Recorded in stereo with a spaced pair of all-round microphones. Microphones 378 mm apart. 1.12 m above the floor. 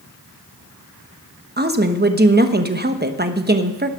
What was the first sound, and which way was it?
A woman speaking, 25° right (ahead or behind).